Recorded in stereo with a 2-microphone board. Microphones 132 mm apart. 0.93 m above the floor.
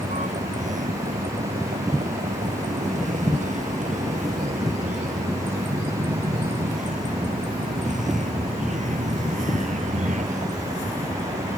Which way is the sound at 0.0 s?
70° right (ahead or behind).